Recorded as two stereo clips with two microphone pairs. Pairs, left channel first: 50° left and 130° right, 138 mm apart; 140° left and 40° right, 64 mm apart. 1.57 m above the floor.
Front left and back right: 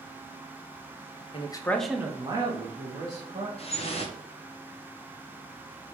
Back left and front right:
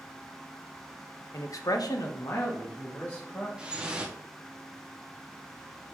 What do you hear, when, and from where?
1.3 s a man speaking: 95° left, 0.5 m; by 3.5 s 160° right, 1.4 m
3.6 s dripping: 25° left, 0.6 m